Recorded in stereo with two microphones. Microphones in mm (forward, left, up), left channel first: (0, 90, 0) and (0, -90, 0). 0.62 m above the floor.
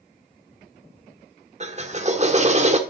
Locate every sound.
1.6 s a drill: 40° right (ahead or behind), 1.4 m